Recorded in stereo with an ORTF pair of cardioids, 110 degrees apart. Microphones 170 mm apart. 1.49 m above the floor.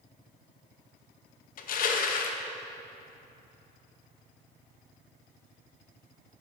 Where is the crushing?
55° left, 0.8 m.